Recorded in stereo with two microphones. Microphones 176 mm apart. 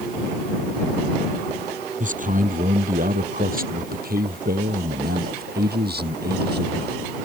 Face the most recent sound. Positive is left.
turn(degrees=-70)  # may be behind; listen again after turning